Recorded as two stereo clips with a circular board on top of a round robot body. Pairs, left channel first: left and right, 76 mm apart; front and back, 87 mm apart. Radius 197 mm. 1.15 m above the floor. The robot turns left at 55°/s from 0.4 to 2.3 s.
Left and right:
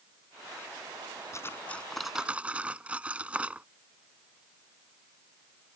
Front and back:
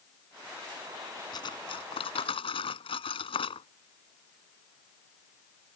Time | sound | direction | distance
1.3 | cutlery clinking | 40° left | ?